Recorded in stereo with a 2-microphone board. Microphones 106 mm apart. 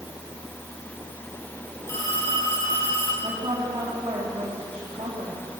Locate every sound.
1.9 s a phone ringing: 25° left (ahead or behind), 10 m
3.2 s a woman speaking: 60° right (ahead or behind), 3.5 m